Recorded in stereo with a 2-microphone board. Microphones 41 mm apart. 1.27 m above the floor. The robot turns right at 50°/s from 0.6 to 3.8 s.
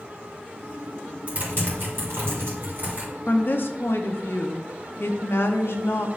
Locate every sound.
1.3 s typing on a keyboard: 45° right (ahead or behind), 3 m; by 3.1 s 40° right (ahead or behind), 3 m
3.3 s a woman speaking: 45° left (ahead or behind), 0.8 m; by 6.1 s 70° left (ahead or behind), 0.8 m